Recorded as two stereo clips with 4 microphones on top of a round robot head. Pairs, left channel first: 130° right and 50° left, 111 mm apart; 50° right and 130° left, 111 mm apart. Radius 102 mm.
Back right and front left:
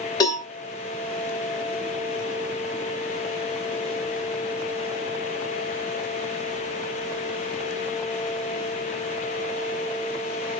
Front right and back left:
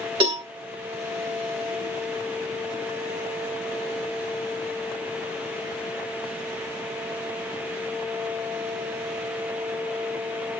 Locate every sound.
0.2 s a cowbell: 175° left, 1.9 m